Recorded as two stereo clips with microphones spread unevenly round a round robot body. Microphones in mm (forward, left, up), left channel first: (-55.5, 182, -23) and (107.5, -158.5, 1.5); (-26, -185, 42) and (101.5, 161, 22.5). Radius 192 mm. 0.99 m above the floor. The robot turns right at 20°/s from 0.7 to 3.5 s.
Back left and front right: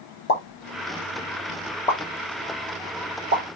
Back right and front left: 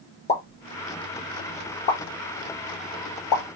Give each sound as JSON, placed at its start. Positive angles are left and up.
{"t": 0.3, "sound": "a pop", "azimuth_deg": 175, "distance_m": 2.5}